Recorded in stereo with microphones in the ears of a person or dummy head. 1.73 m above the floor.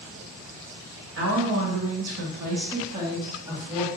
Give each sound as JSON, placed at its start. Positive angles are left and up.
{"t": 1.2, "sound": "a woman speaking", "side_deg": -65, "distance_m": 0.7}